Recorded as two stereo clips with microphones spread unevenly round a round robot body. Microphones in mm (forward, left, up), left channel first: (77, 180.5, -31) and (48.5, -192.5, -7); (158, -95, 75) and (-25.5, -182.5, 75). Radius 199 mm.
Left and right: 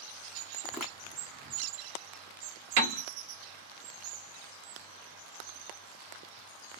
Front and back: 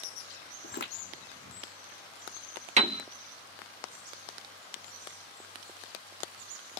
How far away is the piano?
About 1.1 m.